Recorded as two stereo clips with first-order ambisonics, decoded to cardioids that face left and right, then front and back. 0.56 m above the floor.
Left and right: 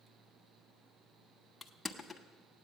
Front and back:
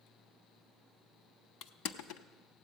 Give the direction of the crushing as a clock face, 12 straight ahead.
12 o'clock.